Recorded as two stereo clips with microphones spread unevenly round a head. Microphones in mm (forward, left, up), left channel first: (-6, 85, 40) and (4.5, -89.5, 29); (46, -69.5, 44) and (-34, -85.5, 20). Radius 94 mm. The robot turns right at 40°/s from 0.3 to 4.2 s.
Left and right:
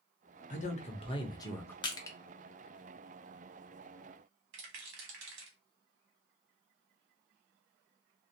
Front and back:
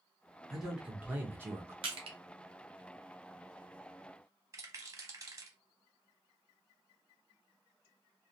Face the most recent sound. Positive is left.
turn(degrees=-115)